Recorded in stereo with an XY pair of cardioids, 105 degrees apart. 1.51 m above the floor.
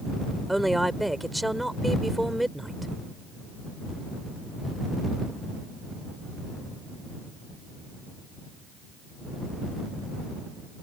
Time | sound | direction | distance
0.5 | a woman speaking | 5° right | ?